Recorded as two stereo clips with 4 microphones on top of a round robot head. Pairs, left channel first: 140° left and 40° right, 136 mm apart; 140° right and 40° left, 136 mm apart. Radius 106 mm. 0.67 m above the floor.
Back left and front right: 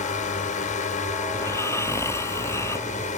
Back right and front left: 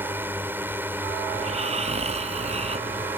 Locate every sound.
0.0 s a drone: 115° left
1.3 s snoring: 70° left